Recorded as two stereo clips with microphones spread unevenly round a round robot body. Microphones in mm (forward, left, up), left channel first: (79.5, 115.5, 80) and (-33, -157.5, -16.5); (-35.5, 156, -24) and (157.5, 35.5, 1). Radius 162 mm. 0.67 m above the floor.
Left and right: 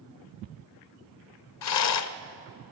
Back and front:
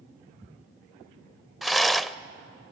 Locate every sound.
1.6 s a rattle: 55° left, 0.7 m